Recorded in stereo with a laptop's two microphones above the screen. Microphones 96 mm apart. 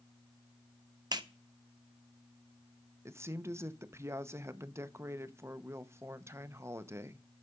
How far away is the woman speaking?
About 0.8 m.